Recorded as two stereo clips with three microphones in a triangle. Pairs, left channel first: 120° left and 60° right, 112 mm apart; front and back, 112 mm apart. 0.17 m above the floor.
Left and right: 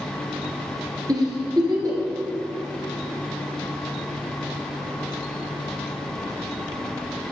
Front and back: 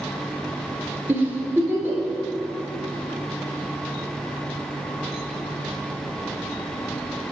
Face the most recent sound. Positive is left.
turn(degrees=-110)